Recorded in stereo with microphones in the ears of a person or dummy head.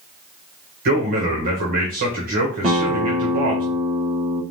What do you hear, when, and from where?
0.8 s a man speaking: 45° right (ahead or behind), 1.4 m
2.6 s a guitar: 35° right (ahead or behind), 1.0 m